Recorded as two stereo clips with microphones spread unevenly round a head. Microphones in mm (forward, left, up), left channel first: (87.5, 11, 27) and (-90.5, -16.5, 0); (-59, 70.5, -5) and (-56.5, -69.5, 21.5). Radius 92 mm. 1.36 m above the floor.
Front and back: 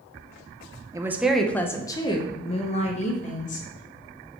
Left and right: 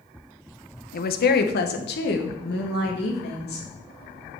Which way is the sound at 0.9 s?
115° left.